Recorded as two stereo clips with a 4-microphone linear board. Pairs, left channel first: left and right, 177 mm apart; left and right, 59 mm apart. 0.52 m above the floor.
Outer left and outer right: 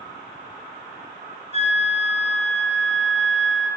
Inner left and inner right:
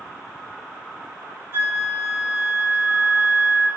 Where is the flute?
40° right (ahead or behind), 0.9 m.